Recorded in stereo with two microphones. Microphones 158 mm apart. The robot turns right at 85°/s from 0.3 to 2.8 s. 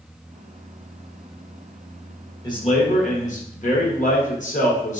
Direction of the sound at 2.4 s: 20° left.